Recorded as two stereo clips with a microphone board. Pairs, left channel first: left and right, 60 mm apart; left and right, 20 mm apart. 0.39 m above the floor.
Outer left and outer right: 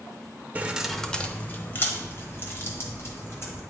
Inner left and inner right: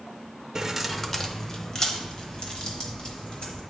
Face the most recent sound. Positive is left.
turn(degrees=45)  # may be behind; listen again after turning